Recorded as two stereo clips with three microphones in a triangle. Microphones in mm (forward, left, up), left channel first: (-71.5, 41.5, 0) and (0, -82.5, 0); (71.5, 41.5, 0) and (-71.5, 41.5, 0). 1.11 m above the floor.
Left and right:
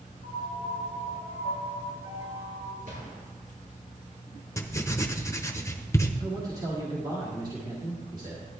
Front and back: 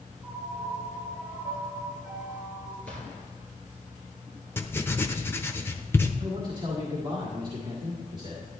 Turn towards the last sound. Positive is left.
turn(degrees=-120)